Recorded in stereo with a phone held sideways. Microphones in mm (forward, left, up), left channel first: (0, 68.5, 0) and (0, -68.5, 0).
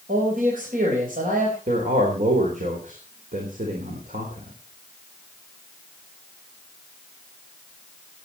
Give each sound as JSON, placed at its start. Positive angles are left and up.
{"t": 0.1, "sound": "a man speaking", "side_deg": -85, "distance_m": 4.5}
{"t": 1.7, "sound": "a man speaking", "side_deg": -70, "distance_m": 4.0}